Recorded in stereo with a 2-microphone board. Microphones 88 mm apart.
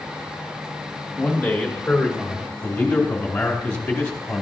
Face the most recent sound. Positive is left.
turn(degrees=15)  # may be behind; listen again after turning